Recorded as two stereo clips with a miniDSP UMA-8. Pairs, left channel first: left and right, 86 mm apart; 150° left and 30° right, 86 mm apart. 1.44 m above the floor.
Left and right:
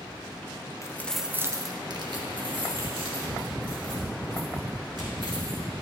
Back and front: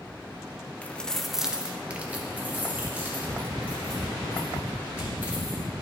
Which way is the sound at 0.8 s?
85° left.